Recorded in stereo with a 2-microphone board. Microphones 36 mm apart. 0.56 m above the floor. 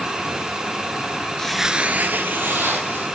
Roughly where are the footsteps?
Centre.